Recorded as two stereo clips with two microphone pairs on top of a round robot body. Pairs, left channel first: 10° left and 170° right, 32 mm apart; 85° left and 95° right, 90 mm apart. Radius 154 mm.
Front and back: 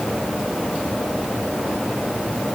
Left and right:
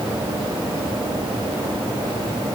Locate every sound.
Only background noise.